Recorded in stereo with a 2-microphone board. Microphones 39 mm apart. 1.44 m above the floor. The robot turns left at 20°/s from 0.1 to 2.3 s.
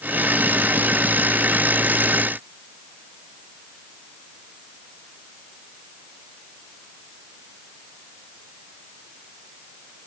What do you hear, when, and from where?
Only background noise.